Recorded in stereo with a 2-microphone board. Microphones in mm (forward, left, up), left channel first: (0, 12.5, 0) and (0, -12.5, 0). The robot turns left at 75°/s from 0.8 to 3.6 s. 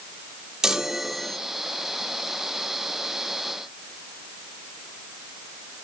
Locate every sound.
0.6 s a chime: 155° right, 1.1 m; by 1.4 s 165° left, 1.1 m